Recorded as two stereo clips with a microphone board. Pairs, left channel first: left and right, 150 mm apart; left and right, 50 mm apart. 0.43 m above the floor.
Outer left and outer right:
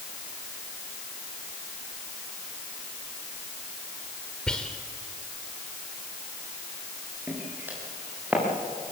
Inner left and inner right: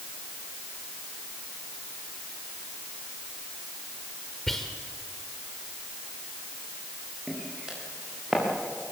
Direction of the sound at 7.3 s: 15° right (ahead or behind).